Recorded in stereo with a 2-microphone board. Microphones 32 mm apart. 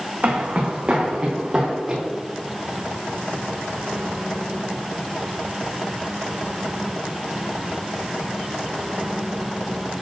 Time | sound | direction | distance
0.2 | footsteps | 50° right (ahead or behind) | 2 m